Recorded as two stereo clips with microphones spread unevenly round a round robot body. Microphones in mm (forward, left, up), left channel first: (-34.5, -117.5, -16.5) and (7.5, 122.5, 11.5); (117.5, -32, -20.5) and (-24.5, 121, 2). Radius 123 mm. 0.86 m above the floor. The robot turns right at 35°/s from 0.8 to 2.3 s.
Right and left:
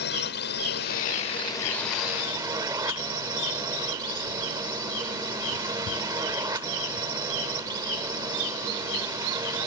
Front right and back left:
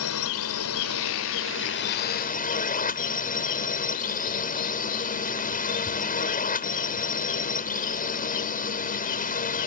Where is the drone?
50° right; by 9.7 s 5° left.